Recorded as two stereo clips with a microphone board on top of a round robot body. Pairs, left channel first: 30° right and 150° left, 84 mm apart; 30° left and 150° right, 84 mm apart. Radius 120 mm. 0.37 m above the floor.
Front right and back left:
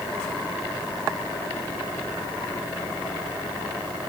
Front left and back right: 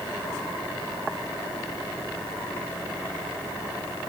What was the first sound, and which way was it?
Only background noise.